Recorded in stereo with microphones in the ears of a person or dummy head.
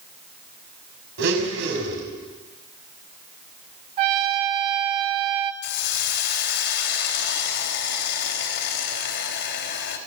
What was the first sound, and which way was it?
A blender, 70° right (ahead or behind).